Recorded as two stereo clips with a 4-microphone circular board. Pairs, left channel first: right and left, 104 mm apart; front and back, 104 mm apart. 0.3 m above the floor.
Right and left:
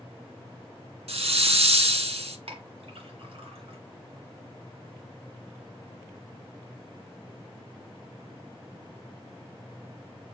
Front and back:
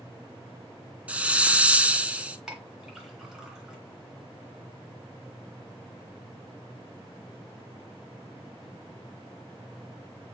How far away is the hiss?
About 0.5 m.